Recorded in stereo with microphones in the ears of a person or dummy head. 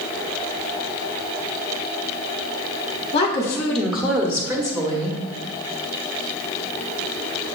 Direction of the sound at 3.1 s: 30° left (ahead or behind).